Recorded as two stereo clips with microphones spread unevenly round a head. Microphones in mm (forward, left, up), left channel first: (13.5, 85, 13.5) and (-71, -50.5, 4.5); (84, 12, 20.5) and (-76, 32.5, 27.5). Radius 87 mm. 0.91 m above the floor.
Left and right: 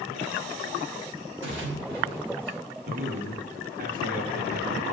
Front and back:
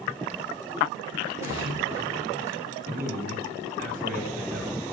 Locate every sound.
1.4 s a splash: 110° right, 3 m
2.8 s a man speaking: 150° right, 1.8 m